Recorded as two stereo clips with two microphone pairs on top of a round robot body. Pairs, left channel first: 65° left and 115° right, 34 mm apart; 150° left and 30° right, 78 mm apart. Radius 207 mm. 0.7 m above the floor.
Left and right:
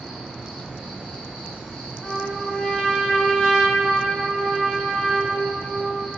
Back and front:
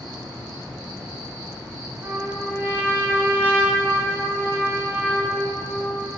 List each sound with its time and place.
0.0 s an insect: 15° left, 1.4 m
2.0 s a trumpet: 20° left, 1.0 m